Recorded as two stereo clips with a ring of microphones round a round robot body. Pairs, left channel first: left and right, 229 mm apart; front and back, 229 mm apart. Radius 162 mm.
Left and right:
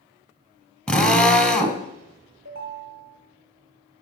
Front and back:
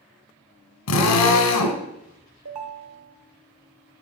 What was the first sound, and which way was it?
A drill, 5° left.